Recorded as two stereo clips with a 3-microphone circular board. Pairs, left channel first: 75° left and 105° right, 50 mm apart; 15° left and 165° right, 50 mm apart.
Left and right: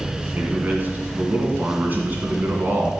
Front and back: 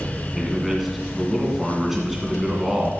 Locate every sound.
0.3 s a man speaking: 80° right, 2.0 m